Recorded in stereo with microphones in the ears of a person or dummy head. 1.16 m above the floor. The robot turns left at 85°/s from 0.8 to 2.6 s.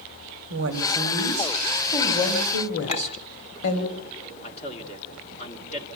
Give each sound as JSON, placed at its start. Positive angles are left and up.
{"t": 0.5, "sound": "a woman speaking", "azimuth_deg": -100, "distance_m": 3.0}
{"t": 2.9, "sound": "a clink", "side_deg": 35, "distance_m": 3.0}
{"t": 4.4, "sound": "a man speaking", "side_deg": 35, "distance_m": 2.5}